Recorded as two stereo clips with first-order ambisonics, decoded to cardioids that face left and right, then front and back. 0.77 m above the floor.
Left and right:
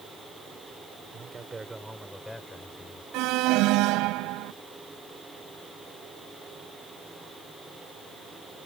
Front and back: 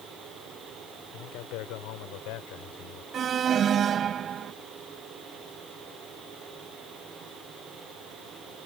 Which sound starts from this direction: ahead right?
A man speaking, at 1.1 s.